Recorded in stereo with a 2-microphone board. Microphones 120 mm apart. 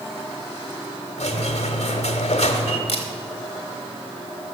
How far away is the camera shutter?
About 1.6 m.